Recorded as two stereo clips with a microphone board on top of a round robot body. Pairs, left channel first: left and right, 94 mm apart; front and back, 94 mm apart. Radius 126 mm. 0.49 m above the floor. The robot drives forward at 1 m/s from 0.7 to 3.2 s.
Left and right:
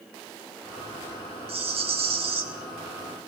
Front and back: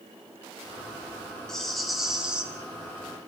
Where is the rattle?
85° right, 3.5 m; by 2.4 s 100° right, 3.5 m.